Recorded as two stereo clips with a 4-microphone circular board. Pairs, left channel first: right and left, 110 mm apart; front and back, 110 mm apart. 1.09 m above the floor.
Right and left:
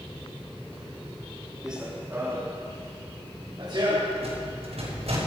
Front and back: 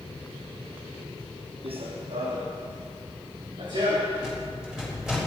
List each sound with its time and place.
1.6 s running footsteps: 175° left, 2.5 m; by 4.1 s 135° left, 5.5 m
4.2 s a rattle: 95° left, 5.5 m